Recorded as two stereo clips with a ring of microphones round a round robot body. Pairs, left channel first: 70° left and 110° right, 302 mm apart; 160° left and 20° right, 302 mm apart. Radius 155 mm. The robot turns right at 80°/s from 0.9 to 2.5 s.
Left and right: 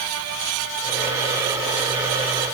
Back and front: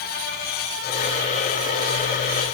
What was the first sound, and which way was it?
Only background noise.